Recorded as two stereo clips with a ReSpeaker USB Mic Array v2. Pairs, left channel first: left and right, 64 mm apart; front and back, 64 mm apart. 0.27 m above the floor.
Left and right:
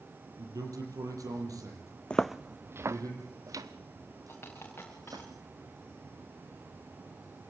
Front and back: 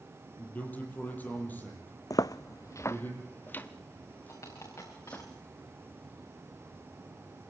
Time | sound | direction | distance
0.4 | a man speaking | 65° right | 6 m
2.1 | footsteps | 20° left | 0.7 m
4.3 | a dropped coin | 35° left | 6 m